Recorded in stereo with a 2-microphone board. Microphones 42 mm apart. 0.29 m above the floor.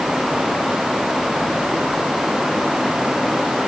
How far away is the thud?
I don't hear a thud.